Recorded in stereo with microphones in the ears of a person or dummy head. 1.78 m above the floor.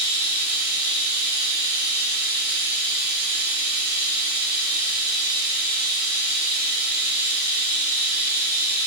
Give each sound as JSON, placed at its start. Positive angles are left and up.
{"t": 0.0, "sound": "running water", "side_deg": -55, "distance_m": 2.0}